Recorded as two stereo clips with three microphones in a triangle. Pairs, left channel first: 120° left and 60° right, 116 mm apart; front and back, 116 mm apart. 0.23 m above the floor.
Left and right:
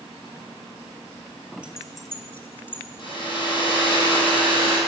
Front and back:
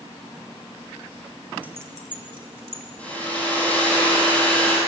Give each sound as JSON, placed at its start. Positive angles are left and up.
{"t": 1.6, "sound": "keys jangling", "azimuth_deg": -125, "distance_m": 1.1}
{"t": 3.0, "sound": "a hair dryer", "azimuth_deg": 80, "distance_m": 5.5}